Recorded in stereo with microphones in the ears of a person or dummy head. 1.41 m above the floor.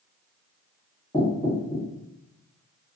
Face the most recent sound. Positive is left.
turn(degrees=10)  # may be behind; listen again after turning